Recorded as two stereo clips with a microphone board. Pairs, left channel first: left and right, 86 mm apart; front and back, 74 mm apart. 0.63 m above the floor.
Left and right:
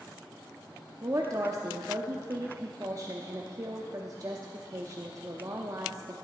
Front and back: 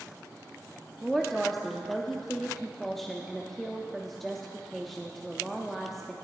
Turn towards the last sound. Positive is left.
turn(degrees=-85)